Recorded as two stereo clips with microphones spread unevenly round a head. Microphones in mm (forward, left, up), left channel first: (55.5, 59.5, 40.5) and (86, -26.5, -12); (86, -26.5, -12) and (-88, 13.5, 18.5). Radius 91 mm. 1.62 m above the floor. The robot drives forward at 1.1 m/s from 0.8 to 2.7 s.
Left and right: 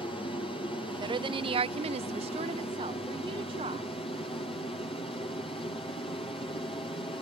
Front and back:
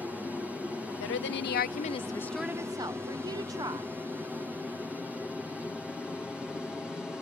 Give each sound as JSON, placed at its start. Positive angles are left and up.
{"t": 0.0, "sound": "an aircraft", "azimuth_deg": 75}
{"t": 1.0, "sound": "a woman speaking", "azimuth_deg": -35}